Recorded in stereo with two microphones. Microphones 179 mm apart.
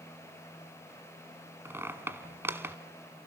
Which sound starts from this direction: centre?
A squeak, at 1.6 s.